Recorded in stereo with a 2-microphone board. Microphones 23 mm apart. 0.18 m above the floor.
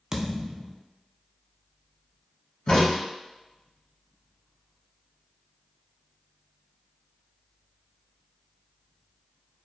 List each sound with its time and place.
0.1 s a thud: 20° right (ahead or behind), 0.5 m
2.7 s a crack: 50° left (ahead or behind), 1.5 m